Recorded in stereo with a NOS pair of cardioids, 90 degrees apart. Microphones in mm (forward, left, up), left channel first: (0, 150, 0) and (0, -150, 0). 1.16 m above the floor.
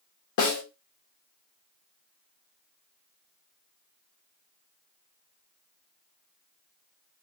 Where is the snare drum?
70° left, 1.5 m.